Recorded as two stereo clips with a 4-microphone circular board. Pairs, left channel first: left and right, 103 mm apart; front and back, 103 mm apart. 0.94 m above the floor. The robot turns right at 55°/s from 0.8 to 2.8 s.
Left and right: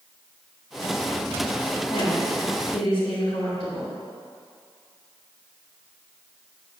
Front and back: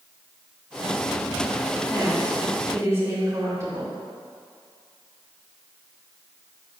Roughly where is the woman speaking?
Left.